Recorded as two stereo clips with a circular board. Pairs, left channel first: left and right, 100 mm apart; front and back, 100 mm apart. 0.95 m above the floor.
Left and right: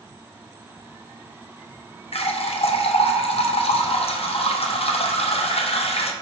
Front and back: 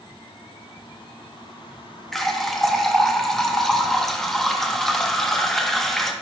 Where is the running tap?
85° left, 0.5 m.